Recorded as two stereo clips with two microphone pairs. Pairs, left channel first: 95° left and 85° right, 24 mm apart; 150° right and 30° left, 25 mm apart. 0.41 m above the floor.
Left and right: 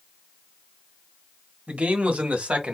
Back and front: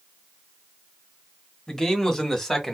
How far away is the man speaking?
About 2.5 m.